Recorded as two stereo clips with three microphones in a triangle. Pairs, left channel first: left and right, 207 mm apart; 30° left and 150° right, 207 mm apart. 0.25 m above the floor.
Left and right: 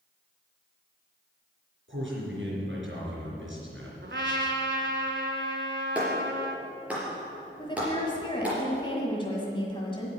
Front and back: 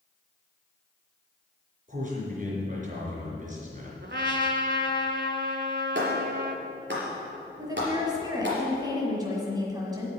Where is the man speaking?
100° right, 4 m.